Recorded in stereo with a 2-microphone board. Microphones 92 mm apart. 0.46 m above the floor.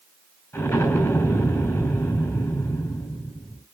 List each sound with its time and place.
0.5 s an explosion: 35° left (ahead or behind), 6 m